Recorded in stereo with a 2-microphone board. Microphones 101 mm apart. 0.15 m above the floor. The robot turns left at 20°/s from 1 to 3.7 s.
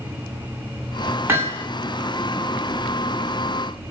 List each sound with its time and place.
1.3 s hammering: 25° right (ahead or behind), 8 m; by 1.7 s 30° right (ahead or behind), 8 m